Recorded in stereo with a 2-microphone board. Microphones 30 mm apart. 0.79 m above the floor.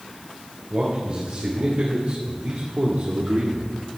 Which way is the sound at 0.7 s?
55° right (ahead or behind).